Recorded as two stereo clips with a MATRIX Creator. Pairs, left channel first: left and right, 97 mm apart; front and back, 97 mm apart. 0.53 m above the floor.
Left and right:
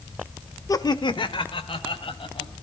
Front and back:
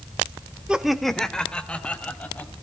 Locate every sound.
0.7 s laughter: 105° left, 0.8 m; by 2.5 s 75° left, 3 m